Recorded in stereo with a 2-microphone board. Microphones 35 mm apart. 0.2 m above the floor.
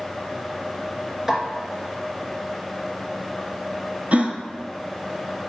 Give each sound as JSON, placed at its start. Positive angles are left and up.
{"t": 1.3, "sound": "a snare drum", "side_deg": -10, "distance_m": 3.0}
{"t": 4.1, "sound": "a gasp", "side_deg": -45, "distance_m": 1.1}